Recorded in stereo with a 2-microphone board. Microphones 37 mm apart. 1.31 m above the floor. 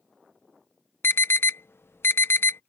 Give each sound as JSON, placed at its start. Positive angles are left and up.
{"t": 1.0, "sound": "an alarm", "side_deg": 80}